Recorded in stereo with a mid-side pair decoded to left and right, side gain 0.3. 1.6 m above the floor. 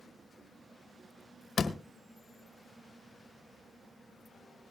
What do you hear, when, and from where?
1.6 s a door slam: 60° left, 1.4 m